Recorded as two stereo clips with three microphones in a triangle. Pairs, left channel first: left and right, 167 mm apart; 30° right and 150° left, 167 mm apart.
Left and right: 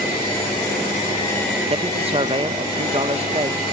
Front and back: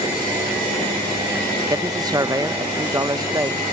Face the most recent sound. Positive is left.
turn(degrees=-140)